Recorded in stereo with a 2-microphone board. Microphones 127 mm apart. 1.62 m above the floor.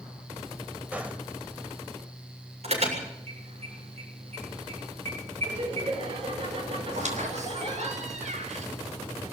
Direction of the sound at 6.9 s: 70° right (ahead or behind).